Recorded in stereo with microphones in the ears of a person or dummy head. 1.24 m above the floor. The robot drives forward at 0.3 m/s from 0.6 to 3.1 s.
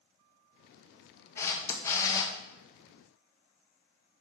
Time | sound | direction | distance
1.4 | a camera shutter | 15° left (ahead or behind) | 1.1 m